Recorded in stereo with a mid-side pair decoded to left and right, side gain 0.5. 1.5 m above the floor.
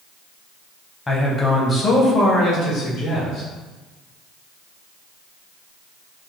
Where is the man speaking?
25° left, 1.4 m; by 3.5 s 60° left, 2.5 m.